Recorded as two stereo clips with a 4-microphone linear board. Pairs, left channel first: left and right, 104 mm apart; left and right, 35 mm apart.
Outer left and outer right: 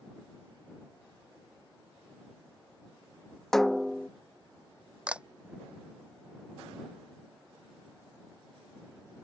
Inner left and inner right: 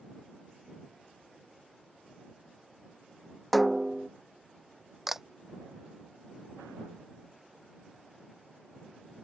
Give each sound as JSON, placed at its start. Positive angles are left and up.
{"t": 3.5, "sound": "a snare drum", "side_deg": 5}
{"t": 5.1, "sound": "a camera shutter", "side_deg": -10}